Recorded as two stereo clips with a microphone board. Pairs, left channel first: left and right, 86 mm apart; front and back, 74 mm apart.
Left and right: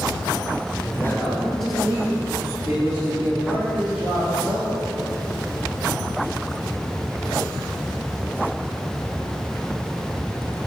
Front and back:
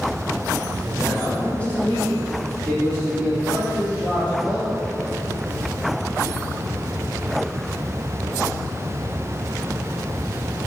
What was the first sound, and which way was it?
A man speaking, 65° left.